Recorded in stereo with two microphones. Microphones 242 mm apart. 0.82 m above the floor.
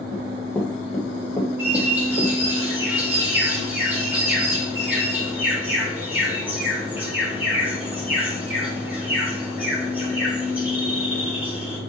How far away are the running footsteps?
About 1.6 m.